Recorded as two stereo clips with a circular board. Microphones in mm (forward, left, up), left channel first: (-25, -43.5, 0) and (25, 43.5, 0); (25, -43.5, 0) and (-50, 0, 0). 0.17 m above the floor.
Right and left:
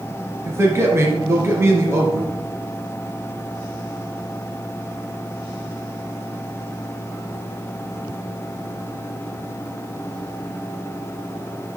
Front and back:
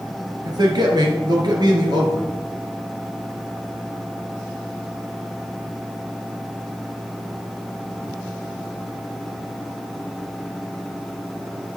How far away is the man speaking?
About 2.5 m.